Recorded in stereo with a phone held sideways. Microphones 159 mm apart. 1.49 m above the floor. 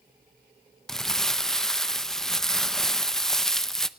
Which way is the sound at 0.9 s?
Centre (ahead or behind).